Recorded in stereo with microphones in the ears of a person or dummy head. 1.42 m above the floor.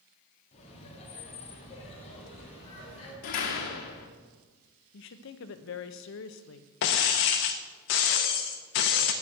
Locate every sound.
0.5 s laughter: 35° left (ahead or behind), 3 m
3.2 s a door slam: 50° left (ahead or behind), 1.4 m
4.9 s a woman speaking: 65° left (ahead or behind), 0.8 m
6.8 s breaking glass: 45° left (ahead or behind), 0.9 m